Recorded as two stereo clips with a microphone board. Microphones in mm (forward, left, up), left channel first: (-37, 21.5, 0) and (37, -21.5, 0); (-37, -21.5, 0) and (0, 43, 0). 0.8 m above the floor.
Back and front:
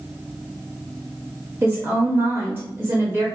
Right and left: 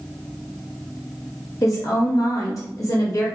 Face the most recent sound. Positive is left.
turn(degrees=-90)